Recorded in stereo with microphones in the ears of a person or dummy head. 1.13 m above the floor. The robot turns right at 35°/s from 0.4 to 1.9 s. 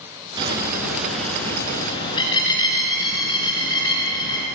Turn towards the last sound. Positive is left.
turn(degrees=25)